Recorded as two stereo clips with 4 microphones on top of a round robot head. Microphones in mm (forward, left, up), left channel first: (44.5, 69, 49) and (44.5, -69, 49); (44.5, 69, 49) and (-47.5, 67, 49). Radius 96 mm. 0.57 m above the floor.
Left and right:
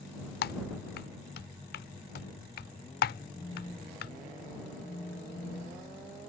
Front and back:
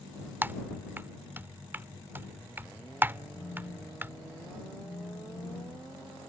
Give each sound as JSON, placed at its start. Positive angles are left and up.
{"t": 0.4, "sound": "typing on a keyboard", "azimuth_deg": 110}
{"t": 3.4, "sound": "a phone buzzing", "azimuth_deg": 35}